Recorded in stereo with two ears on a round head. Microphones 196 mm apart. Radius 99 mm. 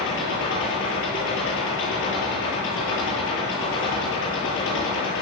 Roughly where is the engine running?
Left.